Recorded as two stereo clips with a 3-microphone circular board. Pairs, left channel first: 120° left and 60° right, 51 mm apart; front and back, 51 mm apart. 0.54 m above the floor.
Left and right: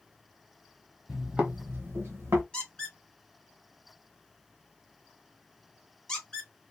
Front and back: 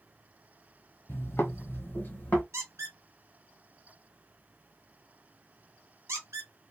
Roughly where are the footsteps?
Ahead.